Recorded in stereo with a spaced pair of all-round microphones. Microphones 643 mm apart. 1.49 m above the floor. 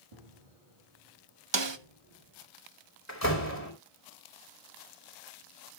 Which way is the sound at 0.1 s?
60° right (ahead or behind).